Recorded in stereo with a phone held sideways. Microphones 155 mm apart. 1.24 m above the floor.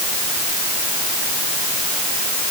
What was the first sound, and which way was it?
Only background noise.